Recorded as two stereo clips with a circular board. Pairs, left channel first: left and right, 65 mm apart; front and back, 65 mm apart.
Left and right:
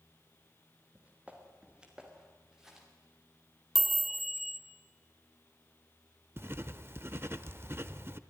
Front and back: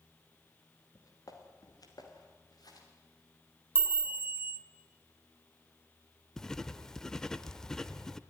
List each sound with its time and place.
0.9 s footsteps: 25° right, 3.5 m; by 2.9 s 5° right, 5 m
3.8 s a chime: 175° right, 1.2 m
6.4 s writing: 75° right, 0.7 m